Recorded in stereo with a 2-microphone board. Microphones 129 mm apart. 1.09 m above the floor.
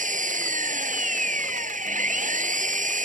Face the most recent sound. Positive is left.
turn(degrees=-85)